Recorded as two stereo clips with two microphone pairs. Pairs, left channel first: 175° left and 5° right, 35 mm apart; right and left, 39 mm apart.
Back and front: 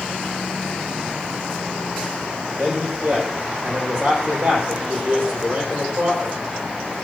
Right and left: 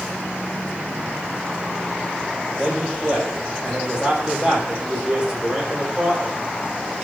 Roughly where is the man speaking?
Ahead left.